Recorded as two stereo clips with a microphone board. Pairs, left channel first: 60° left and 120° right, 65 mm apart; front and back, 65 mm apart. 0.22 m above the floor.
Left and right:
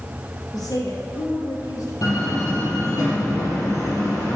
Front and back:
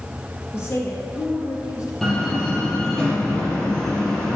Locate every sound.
0.5 s a woman speaking: 50° left, 4 m; by 1.9 s 35° left, 3.5 m
2.0 s a door slam: 85° left, 4.5 m